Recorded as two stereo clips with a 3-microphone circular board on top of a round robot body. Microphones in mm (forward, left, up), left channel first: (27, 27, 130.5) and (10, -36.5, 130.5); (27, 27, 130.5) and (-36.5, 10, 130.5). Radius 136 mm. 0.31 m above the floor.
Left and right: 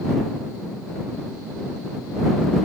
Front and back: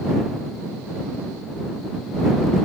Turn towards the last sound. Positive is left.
No sound to turn to.